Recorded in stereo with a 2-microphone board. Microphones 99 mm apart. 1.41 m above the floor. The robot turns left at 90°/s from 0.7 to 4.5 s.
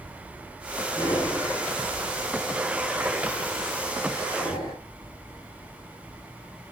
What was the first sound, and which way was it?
Breathing, 30° left (ahead or behind).